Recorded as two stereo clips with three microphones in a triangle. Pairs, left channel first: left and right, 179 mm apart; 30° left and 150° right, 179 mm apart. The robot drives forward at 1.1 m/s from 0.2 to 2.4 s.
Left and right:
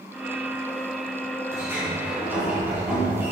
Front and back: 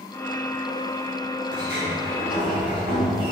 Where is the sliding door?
165° right, 2.5 m; by 3.3 s 170° right, 3.5 m.